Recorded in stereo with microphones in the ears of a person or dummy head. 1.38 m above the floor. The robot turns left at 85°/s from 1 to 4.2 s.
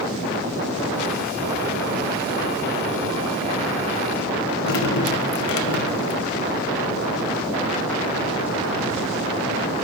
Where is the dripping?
65° left (ahead or behind), 0.6 m.